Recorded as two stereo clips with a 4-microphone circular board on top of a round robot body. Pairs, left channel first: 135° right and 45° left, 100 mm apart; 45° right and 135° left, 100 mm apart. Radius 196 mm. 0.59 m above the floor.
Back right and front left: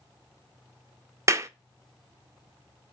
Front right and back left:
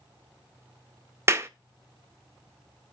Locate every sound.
1.3 s a clap: 85° left, 0.5 m